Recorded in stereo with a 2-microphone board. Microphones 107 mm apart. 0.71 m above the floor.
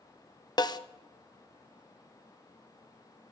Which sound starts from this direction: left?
A snare drum, at 0.6 s.